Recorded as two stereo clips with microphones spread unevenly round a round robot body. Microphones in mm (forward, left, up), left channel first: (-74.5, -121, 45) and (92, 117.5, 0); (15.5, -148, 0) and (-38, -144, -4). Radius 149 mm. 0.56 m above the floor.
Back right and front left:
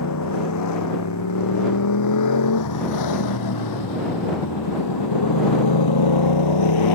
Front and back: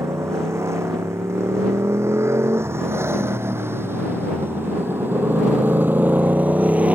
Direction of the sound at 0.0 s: 160° right.